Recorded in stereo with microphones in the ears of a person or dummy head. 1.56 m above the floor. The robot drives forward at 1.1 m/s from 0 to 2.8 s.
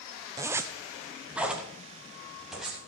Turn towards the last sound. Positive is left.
turn(degrees=-5)  # may be behind; listen again after turning